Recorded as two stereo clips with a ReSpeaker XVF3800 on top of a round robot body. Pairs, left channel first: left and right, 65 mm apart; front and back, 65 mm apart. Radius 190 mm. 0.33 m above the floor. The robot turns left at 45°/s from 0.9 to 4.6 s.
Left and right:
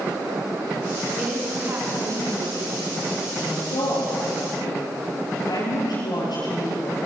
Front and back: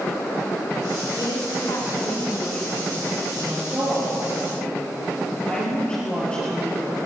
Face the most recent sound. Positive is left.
turn(degrees=75)